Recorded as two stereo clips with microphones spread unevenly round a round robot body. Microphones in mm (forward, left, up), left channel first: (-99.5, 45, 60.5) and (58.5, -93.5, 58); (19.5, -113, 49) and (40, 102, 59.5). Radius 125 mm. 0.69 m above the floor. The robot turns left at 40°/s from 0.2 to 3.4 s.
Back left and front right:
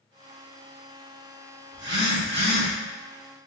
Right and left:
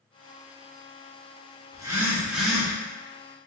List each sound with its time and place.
1.7 s a phone buzzing: 20° left, 1.2 m; by 2.7 s 20° right, 1.2 m